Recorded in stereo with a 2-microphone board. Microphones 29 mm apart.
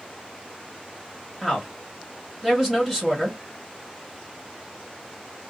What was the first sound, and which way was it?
A woman speaking, 10° right (ahead or behind).